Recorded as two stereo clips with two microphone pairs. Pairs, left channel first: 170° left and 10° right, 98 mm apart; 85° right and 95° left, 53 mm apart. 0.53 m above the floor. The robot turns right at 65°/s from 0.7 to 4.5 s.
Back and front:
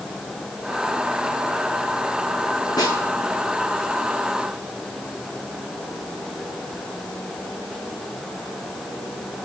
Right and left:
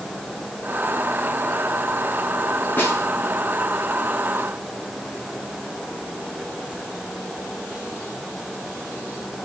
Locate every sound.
2.8 s a snare drum: 140° right, 4.5 m; by 3.1 s 120° right, 4.5 m